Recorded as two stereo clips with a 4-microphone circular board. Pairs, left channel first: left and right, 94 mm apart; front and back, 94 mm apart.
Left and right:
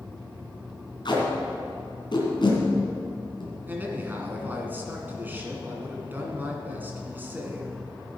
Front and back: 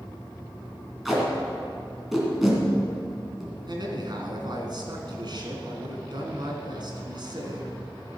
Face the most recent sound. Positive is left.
turn(degrees=-155)